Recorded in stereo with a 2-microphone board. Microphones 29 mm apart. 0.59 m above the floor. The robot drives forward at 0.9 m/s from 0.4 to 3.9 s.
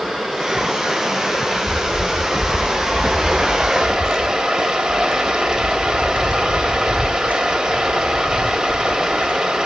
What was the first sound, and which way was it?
Running water, 5° right (ahead or behind).